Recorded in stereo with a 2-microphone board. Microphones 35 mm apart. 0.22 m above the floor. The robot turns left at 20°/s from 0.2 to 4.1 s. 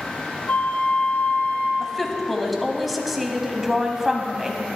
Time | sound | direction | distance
0.5 | a flute | 65° left (ahead or behind) | 1.3 m
1.8 | a woman speaking | 10° left (ahead or behind) | 1.2 m